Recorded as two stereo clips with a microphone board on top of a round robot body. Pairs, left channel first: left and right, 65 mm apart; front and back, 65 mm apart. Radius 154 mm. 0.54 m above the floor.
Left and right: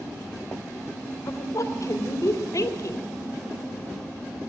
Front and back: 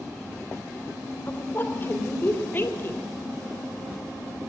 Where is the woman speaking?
60° left, 3.5 m.